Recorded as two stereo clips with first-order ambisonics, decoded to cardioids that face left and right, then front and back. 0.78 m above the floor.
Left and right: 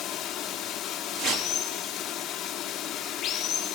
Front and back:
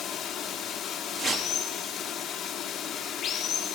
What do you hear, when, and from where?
0.0 s running water: 45° left, 1.2 m
1.2 s a whoosh: 120° right, 1.2 m